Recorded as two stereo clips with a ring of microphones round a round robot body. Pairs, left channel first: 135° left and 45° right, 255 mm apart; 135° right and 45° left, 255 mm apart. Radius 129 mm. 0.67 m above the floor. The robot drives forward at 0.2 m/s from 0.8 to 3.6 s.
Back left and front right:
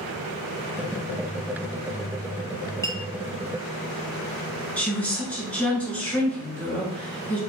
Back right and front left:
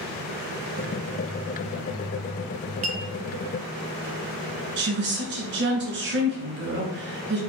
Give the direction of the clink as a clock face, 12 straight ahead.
10 o'clock.